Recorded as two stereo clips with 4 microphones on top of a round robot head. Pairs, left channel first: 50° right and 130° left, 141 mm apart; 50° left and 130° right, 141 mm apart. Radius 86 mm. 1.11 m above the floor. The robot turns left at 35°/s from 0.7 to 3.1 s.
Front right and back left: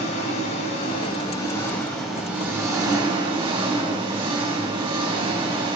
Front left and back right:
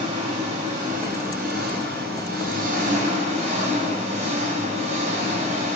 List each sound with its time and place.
0.0 s an engine running: 90° right, 3 m; by 5.8 s 175° right, 3 m